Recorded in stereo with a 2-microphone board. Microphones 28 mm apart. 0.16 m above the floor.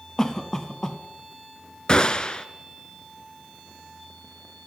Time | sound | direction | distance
0.2 | a cough | 20° left (ahead or behind) | 1.5 m
1.9 | a gunshot | 30° left (ahead or behind) | 0.9 m